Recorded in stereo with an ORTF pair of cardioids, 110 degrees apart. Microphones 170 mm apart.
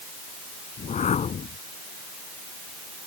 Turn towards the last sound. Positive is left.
turn(degrees=45)